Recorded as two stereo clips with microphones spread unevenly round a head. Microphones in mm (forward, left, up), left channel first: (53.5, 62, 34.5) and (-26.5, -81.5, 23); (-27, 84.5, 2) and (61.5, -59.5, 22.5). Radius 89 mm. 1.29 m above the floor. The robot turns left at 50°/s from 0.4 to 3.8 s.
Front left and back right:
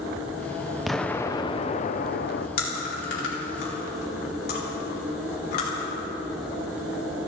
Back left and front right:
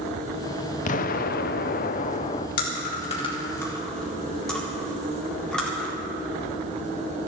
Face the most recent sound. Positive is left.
turn(degrees=35)